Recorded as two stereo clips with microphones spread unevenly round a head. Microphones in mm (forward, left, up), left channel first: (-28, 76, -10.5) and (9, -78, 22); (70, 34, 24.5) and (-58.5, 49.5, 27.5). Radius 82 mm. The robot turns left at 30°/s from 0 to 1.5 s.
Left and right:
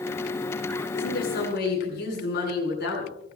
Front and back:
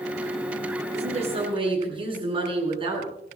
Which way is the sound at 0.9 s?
140° left.